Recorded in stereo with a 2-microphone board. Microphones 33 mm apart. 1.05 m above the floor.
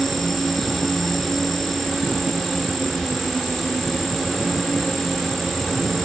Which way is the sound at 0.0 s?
10° left (ahead or behind).